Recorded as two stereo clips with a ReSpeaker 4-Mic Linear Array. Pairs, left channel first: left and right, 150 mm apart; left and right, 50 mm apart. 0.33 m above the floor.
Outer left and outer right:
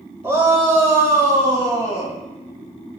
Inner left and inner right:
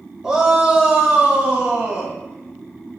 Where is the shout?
15° right (ahead or behind), 0.9 m; by 2.1 s 25° right (ahead or behind), 1.7 m.